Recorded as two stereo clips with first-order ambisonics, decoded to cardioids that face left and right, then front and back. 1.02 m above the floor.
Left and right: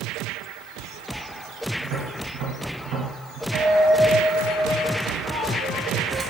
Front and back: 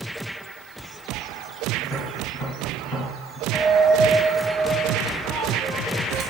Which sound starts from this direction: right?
Tapping, at 1.8 s.